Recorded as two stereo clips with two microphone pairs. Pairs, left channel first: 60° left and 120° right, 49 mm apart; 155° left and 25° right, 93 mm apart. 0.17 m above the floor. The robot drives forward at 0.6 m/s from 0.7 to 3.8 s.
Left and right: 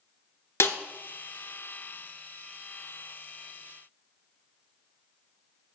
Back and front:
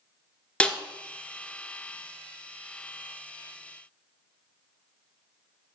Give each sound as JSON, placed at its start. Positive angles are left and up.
{"t": 0.6, "sound": "a snare drum", "azimuth_deg": 80, "distance_m": 1.0}